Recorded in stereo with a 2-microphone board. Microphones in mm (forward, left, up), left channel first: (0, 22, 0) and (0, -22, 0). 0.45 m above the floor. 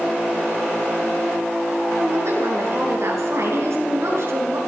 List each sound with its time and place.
2.0 s a woman speaking: 70° right (ahead or behind), 6 m